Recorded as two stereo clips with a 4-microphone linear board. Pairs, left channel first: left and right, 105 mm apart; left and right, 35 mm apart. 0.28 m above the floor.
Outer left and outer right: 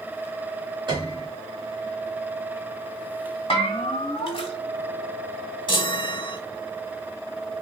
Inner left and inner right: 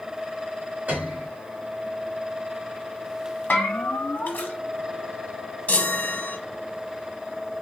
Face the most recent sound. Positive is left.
turn(degrees=50)  # may be behind; listen again after turning